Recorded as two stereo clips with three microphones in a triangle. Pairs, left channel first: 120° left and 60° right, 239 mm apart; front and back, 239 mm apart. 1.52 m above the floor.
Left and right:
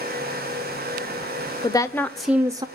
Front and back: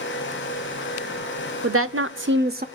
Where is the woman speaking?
170° right, 0.8 m; by 2.6 s 125° right, 0.6 m.